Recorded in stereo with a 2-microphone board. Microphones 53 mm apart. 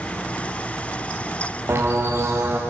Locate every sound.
1.7 s a bird: 45° right (ahead or behind), 5.5 m